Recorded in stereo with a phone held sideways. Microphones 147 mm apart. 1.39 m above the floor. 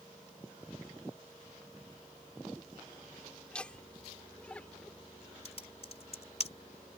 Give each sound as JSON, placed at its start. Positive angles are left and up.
{"t": 3.5, "sound": "laughter", "side_deg": 5}
{"t": 5.5, "sound": "typing on a keyboard", "side_deg": 45}